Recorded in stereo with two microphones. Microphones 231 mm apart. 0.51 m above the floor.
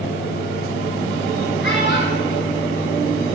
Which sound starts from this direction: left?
A child speaking, at 1.6 s.